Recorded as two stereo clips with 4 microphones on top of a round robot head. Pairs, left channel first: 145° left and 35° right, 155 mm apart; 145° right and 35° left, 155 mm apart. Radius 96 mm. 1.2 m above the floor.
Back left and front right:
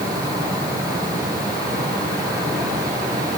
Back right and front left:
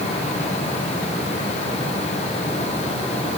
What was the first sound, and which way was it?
Only background noise.